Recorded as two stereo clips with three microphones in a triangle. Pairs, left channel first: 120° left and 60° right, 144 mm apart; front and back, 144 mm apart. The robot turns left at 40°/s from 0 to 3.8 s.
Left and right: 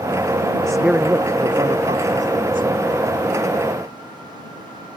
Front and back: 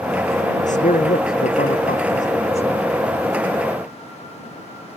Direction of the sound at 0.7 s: 35° left.